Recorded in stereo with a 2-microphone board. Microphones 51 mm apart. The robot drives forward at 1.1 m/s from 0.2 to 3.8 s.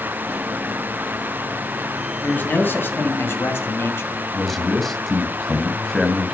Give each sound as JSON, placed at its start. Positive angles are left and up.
{"t": 2.2, "sound": "a man speaking", "side_deg": 35, "distance_m": 2.5}
{"t": 4.3, "sound": "a man speaking", "side_deg": 5, "distance_m": 1.9}